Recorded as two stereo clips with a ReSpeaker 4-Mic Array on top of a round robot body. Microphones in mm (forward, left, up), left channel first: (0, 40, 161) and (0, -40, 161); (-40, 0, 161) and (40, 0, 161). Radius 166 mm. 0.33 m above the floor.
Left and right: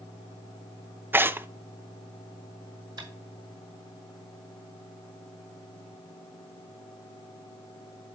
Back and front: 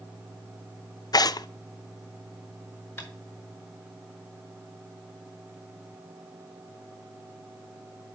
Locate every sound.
1.1 s tearing paper: 150° right, 0.5 m
3.0 s tapping: 115° right, 4.5 m